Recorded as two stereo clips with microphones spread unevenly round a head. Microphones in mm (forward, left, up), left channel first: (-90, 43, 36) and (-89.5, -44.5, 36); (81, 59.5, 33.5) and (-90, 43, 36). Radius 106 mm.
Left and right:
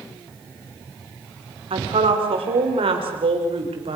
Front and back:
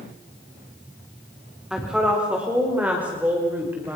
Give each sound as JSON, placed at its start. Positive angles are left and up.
{"t": 1.7, "sound": "a woman speaking", "azimuth_deg": -90, "distance_m": 4.0}